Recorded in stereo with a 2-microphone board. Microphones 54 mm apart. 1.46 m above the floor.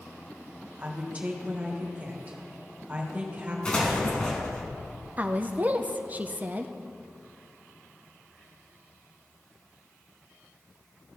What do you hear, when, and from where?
0.8 s a woman speaking: 25° right (ahead or behind), 1.6 m
3.6 s an explosion: 20° left (ahead or behind), 2 m
5.2 s a woman speaking: 30° right (ahead or behind), 0.6 m